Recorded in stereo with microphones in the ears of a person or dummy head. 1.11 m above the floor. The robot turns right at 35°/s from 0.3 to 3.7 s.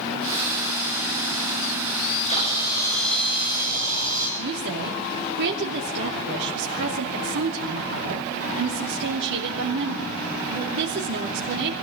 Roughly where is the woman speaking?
Right.